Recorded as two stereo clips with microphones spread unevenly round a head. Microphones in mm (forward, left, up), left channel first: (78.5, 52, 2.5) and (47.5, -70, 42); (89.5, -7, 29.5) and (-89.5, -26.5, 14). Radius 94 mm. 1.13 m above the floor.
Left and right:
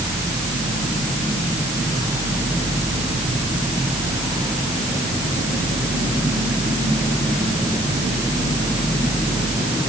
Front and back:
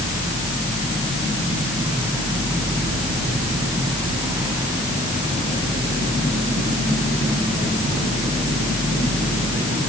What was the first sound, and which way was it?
Only background noise.